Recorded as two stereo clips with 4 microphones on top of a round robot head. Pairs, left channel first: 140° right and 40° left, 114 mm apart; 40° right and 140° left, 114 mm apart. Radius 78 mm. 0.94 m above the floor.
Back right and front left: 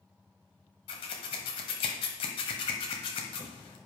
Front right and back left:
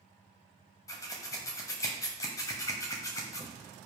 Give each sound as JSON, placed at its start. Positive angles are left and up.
{"t": 0.9, "sound": "scissors", "azimuth_deg": -100, "distance_m": 1.1}